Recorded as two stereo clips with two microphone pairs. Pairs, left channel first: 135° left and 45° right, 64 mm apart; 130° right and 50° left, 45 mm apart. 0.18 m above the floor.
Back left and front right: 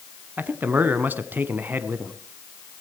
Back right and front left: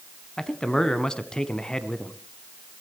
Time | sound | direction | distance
0.4 | a man speaking | 70° right | 1.2 m